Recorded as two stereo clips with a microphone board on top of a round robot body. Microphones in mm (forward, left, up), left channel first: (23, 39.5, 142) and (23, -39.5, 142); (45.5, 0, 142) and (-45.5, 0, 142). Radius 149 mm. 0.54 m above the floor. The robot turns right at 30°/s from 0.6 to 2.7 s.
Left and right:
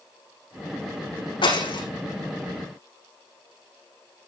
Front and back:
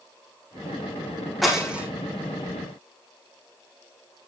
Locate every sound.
1.4 s breaking glass: 90° left, 6.5 m; by 1.8 s 105° left, 6.5 m